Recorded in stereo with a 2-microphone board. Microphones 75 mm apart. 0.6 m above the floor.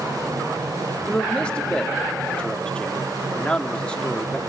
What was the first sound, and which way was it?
A man speaking, 15° left (ahead or behind).